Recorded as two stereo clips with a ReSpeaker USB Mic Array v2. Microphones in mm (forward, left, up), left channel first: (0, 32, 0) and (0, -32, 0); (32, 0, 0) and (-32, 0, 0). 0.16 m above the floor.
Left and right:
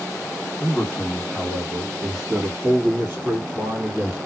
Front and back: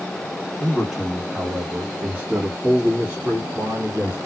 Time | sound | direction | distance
0.6 | a man speaking | 110° left | 1.6 m